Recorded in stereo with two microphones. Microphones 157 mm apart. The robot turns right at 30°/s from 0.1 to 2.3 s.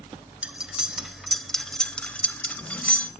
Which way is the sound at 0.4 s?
5° right (ahead or behind).